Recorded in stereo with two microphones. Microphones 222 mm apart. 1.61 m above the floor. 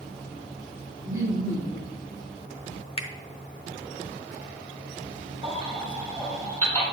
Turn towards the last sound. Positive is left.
turn(degrees=-30)  # may be behind; listen again after turning